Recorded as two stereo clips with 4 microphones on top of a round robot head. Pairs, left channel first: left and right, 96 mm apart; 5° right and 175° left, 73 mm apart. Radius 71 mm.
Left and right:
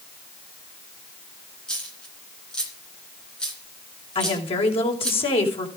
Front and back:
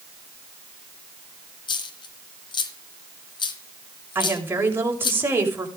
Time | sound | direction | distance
1.7 | a dropped coin | 5° left | 2.5 m
4.2 | a woman speaking | 115° left | 6 m